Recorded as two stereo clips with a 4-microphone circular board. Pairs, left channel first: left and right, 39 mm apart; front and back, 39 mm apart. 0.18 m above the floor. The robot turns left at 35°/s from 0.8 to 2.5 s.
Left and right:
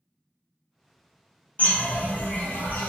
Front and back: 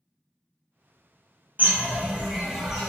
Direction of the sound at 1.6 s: 135° left.